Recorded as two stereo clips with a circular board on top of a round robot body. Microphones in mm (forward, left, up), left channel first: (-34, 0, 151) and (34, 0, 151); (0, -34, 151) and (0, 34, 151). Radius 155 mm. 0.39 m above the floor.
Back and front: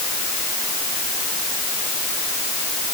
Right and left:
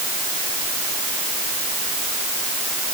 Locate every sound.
Only background noise.